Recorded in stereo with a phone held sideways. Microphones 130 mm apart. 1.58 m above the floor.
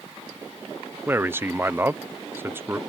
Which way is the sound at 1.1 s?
20° right (ahead or behind).